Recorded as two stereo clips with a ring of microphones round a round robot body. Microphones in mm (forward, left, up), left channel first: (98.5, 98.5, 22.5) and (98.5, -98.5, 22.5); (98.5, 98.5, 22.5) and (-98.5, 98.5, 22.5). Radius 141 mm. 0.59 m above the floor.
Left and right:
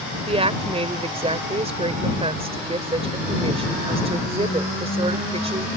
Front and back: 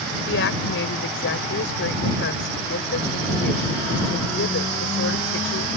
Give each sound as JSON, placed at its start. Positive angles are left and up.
{"t": 0.3, "sound": "a woman speaking", "azimuth_deg": -30}